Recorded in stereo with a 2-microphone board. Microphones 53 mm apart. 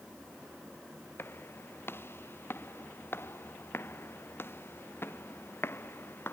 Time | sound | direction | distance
1.2 | footsteps | 45° left (ahead or behind) | ?